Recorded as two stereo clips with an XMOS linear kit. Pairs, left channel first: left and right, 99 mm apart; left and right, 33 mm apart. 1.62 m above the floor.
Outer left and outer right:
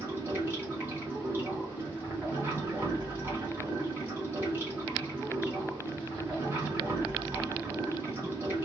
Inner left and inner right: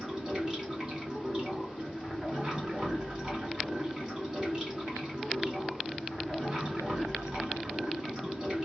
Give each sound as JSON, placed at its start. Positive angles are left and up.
{"t": 0.0, "sound": "running water", "side_deg": -20, "distance_m": 1.4}